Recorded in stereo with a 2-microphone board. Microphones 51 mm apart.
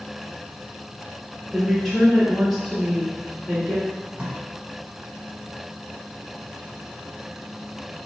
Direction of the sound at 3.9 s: 25° right (ahead or behind).